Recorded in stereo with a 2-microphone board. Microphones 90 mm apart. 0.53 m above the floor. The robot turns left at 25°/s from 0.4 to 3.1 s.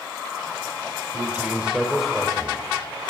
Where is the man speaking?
155° right, 2 m; by 2.6 s 165° left, 2 m.